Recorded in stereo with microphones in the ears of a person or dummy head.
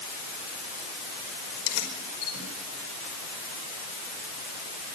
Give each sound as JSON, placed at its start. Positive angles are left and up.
{"t": 1.5, "sound": "keys jangling", "side_deg": 80, "distance_m": 5.5}